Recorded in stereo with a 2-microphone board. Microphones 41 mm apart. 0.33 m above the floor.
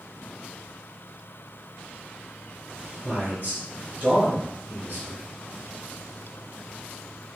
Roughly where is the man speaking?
Right.